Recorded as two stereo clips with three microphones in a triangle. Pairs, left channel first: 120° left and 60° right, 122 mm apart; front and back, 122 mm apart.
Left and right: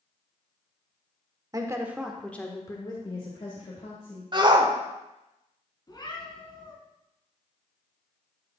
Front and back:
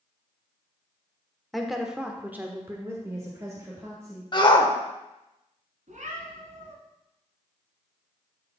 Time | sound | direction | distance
1.5 | a woman speaking | 90° right | 1.1 m
4.3 | a shout | 30° right | 1.1 m
5.9 | a cat meowing | 175° left | 1.8 m